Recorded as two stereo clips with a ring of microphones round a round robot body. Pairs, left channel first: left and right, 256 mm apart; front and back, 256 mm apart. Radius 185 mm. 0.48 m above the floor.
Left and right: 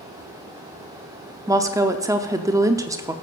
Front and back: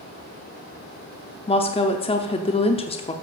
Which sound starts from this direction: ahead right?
A woman speaking, at 1.5 s.